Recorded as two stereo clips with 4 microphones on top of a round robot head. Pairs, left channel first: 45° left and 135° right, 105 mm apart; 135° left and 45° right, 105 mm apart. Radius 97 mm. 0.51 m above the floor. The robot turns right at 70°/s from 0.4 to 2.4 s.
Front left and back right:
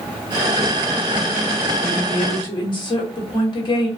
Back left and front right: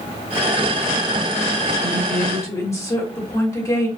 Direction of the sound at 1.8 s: 40° left.